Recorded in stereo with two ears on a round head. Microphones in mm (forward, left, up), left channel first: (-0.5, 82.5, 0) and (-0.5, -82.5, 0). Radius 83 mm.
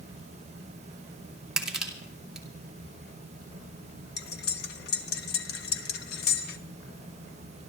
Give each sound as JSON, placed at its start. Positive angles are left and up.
{"t": 1.6, "sound": "crushing", "side_deg": -5, "distance_m": 2.5}
{"t": 4.2, "sound": "cutlery clinking", "side_deg": 60, "distance_m": 1.2}